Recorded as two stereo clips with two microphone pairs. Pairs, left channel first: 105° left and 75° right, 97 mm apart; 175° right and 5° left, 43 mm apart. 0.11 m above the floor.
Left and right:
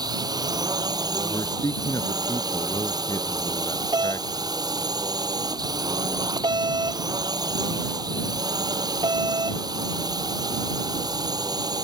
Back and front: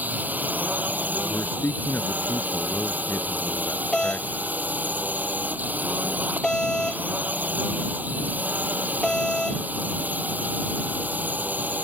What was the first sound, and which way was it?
A drone, 35° right.